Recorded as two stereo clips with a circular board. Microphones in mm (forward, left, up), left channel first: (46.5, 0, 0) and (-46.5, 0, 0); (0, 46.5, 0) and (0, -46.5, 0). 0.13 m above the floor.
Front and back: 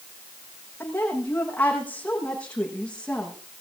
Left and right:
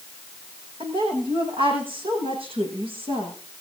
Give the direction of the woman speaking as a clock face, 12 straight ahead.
2 o'clock.